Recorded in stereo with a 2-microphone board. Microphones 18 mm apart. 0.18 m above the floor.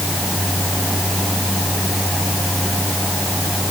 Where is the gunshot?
I don't hear a gunshot.